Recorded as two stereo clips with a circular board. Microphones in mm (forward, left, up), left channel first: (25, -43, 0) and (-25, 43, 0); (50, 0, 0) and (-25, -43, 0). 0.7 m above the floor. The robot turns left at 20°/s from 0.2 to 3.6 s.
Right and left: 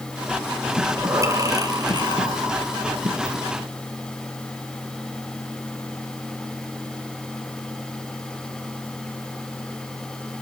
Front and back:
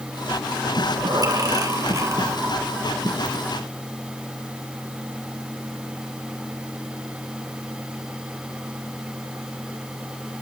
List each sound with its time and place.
0.8 s breathing: 175° right, 2.5 m; by 3.4 s 135° left, 2.5 m